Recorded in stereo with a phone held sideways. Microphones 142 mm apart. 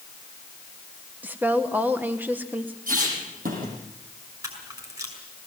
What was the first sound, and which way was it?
A woman speaking, 15° right (ahead or behind).